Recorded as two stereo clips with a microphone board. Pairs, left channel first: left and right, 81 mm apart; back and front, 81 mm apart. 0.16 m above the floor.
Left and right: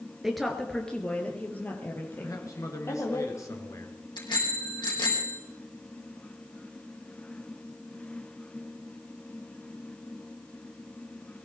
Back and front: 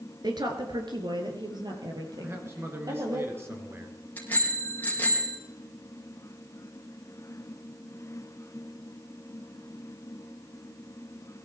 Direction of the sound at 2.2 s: 50° left.